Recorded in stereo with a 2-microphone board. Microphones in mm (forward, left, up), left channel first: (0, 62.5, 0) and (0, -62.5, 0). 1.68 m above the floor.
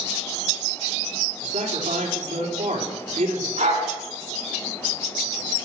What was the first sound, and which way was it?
A man speaking, 65° right (ahead or behind).